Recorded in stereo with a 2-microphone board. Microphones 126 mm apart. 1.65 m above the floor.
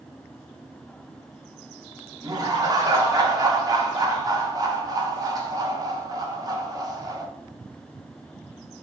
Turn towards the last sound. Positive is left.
turn(degrees=-30)  # may be behind; listen again after turning